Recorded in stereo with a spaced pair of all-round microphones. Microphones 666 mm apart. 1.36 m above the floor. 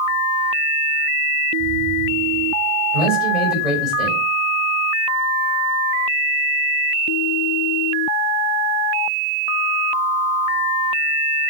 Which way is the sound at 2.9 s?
60° right (ahead or behind).